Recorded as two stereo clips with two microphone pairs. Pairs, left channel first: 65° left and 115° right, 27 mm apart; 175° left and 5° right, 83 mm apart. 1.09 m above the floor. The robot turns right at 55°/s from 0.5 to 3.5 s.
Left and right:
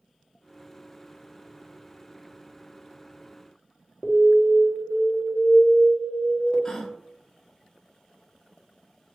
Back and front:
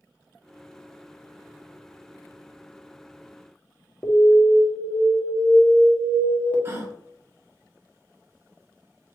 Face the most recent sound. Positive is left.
turn(degrees=25)